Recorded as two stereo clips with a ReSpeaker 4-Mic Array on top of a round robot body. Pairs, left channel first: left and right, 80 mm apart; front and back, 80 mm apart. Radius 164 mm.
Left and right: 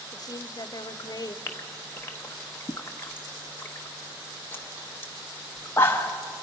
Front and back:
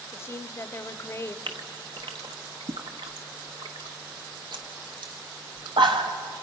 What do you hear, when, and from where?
0.1 s a woman speaking: 55° left, 0.9 m
1.5 s a gasp: 155° left, 0.9 m